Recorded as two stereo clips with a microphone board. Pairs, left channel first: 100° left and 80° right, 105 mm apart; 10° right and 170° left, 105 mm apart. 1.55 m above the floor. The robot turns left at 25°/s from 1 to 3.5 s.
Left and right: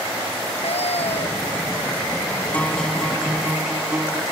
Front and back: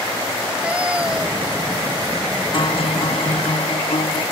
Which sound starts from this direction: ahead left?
A guitar, at 2.5 s.